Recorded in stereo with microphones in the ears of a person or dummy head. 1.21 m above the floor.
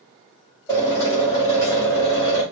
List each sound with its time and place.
0.7 s a drill: 15° left (ahead or behind), 2.5 m